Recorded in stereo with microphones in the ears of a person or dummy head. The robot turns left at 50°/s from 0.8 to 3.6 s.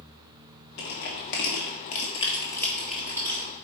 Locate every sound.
0.8 s crushing: 60° left (ahead or behind), 1.5 m; by 3.4 s 25° right (ahead or behind), 1.5 m